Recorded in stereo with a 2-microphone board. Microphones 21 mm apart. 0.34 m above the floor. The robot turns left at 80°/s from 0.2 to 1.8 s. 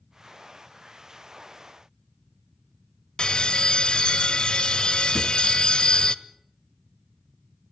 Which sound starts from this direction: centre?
A drawer, at 5.2 s.